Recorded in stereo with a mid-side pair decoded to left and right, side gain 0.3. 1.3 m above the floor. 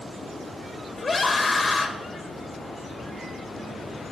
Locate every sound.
1.0 s a scream: 40° left, 1.9 m